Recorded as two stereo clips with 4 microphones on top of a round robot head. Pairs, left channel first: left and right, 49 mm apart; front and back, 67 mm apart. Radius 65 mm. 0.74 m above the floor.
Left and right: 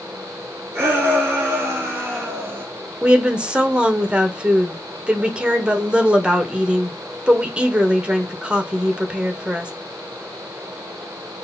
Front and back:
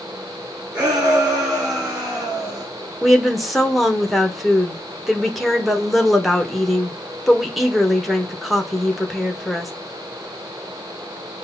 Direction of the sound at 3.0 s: 95° right.